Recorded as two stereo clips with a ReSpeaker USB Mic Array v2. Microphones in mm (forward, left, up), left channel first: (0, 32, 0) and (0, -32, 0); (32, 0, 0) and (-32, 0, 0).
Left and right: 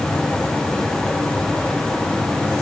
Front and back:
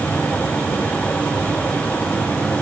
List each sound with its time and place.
Only background noise.